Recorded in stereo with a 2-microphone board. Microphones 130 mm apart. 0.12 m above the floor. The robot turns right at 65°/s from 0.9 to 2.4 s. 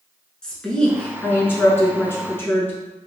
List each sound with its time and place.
0.4 s a woman speaking: 5° left (ahead or behind), 1.1 m; by 2.7 s 20° left (ahead or behind), 1.1 m